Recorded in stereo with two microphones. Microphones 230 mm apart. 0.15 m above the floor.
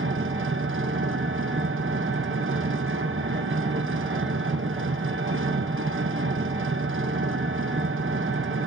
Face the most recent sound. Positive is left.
turn(degrees=-60)  # may be behind; listen again after turning